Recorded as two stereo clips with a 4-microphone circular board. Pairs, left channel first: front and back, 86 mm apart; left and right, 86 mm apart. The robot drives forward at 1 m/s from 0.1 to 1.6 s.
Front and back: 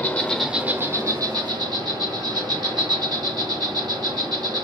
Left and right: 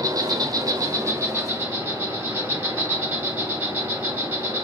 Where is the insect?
60° right, 0.8 m; by 4.7 s 155° right, 1.4 m.